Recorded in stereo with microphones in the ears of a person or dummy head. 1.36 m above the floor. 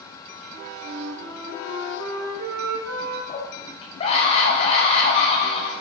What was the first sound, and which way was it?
A flute, 70° right (ahead or behind).